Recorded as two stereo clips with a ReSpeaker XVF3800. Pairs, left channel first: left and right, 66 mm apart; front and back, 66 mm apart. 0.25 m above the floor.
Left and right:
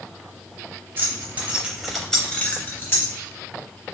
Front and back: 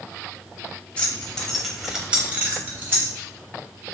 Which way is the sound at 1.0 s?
60° right.